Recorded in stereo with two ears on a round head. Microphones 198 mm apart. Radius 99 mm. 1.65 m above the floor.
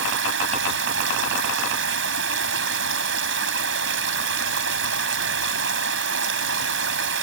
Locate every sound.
0.0 s running water: 60° right (ahead or behind)